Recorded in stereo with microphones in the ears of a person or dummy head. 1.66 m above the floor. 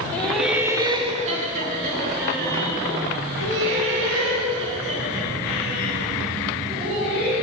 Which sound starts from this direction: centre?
Laughter, at 0.1 s.